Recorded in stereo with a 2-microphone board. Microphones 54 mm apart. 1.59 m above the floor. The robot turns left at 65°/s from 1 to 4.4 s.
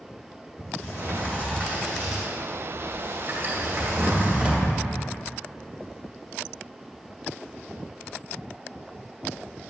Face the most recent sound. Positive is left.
turn(degrees=-15)  # may be behind; listen again after turning